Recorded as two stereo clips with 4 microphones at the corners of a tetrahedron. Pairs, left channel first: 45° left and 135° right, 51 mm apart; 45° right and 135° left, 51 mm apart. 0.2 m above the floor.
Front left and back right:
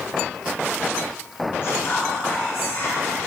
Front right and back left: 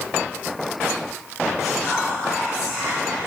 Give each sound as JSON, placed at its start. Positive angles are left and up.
{"t": 1.6, "sound": "whispering", "azimuth_deg": 45, "distance_m": 1.6}